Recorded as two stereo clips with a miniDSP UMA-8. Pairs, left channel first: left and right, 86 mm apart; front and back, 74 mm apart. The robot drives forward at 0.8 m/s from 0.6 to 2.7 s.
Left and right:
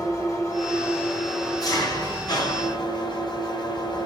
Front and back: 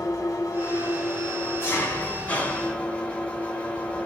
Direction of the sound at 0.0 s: 40° left.